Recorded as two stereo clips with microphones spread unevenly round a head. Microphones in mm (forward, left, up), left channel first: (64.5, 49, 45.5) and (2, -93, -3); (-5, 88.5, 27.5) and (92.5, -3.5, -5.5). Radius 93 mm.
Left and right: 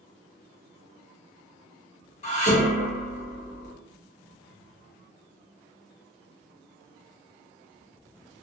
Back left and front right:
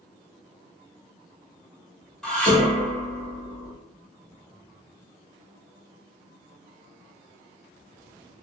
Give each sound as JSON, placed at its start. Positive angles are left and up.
{"t": 2.2, "sound": "dishes clattering", "azimuth_deg": 65, "distance_m": 1.1}